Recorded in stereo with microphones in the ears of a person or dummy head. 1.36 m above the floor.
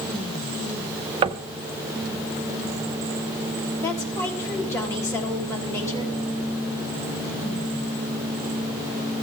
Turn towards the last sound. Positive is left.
turn(degrees=15)  # may be behind; listen again after turning